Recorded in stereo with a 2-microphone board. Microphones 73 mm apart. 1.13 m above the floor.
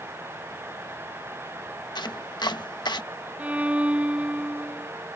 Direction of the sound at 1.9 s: 65° left (ahead or behind).